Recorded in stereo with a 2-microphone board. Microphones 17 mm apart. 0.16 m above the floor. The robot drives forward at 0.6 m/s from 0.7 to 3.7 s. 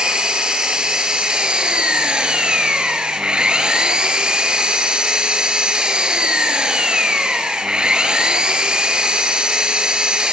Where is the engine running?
55° right (ahead or behind), 3 m; by 10.3 s 60° right (ahead or behind), 2.5 m.